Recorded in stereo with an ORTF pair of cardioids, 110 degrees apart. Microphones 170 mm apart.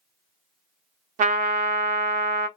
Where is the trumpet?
50° right, 0.7 m.